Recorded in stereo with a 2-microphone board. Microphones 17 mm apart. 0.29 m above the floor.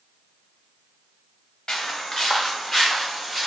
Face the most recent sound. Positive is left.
turn(degrees=-5)  # may be behind; listen again after turning